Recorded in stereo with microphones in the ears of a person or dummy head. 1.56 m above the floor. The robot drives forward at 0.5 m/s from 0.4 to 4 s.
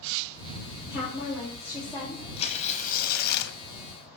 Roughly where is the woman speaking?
Centre.